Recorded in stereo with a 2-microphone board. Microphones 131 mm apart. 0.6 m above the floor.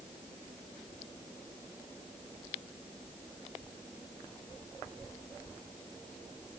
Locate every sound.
Only background noise.